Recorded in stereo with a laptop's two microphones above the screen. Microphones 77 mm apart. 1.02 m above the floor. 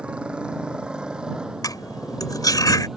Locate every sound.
0.0 s a motorcycle: 15° right (ahead or behind); by 3.0 s 5° right (ahead or behind)
1.6 s cutlery clinking: 50° left (ahead or behind)